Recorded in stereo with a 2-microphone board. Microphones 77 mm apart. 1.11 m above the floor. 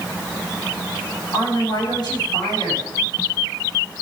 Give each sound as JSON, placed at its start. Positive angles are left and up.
{"t": 1.3, "sound": "a woman speaking", "side_deg": 65, "distance_m": 7.5}